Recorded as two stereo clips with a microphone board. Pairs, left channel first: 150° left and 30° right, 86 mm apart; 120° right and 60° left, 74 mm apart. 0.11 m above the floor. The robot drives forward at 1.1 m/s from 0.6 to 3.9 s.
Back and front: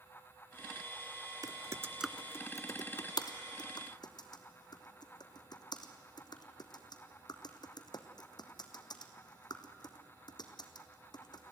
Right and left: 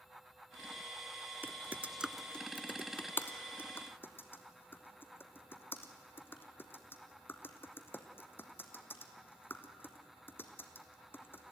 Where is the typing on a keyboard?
5° left, 0.8 m; by 11.5 s straight behind, 2 m.